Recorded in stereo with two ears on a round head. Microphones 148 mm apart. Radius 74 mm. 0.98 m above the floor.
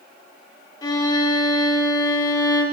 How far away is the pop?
I don't hear a pop.